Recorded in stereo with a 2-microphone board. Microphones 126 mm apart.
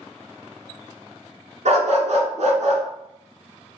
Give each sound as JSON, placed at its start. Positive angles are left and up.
{"t": 1.6, "sound": "a dog barking", "side_deg": -70, "distance_m": 1.2}